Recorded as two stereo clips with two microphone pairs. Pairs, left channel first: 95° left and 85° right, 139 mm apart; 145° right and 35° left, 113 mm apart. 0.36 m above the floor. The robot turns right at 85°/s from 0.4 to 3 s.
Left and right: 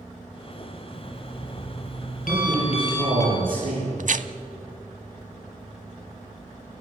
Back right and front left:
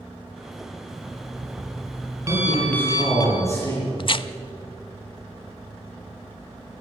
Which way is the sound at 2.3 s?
145° right.